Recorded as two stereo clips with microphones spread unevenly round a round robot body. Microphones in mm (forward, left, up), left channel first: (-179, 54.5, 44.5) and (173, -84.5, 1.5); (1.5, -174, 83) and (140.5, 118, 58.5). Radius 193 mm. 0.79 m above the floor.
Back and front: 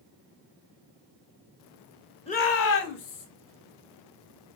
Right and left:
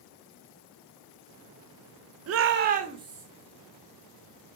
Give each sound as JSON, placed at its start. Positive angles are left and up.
{"t": 2.3, "sound": "a shout", "azimuth_deg": 80, "distance_m": 0.6}